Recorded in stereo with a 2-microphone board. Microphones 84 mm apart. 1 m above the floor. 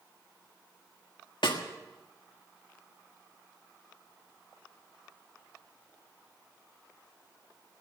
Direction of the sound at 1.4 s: 75° left (ahead or behind).